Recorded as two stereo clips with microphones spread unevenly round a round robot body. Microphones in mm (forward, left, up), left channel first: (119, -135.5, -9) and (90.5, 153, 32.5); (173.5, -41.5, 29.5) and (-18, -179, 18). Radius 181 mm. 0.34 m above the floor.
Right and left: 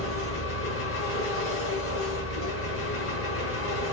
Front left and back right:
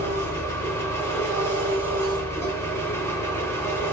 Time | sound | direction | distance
0.0 | an engine running | 45° right | 2 m